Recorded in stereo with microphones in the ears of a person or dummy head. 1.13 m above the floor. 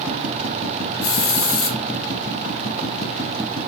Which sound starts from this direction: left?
A hiss, at 1.0 s.